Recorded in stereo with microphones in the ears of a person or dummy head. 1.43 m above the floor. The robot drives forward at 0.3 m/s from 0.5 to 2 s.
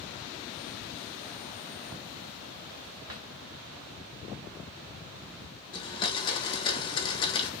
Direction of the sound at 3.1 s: 20° right (ahead or behind).